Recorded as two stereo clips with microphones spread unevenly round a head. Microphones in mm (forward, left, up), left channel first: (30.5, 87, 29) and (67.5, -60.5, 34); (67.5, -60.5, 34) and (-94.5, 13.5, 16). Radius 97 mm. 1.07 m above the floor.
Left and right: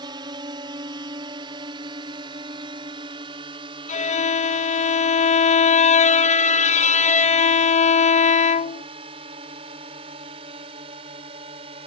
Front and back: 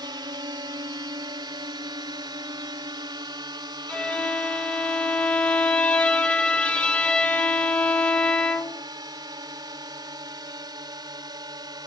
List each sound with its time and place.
0.0 s a drone: 140° right; by 11.9 s 135° right
3.9 s a violin: 60° left